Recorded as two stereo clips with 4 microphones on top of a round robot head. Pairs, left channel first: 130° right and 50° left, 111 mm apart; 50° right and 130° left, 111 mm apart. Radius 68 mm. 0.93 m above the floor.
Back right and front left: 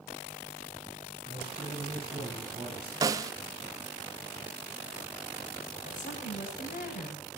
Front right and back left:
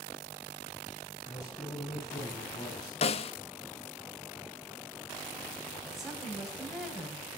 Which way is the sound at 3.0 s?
10° right.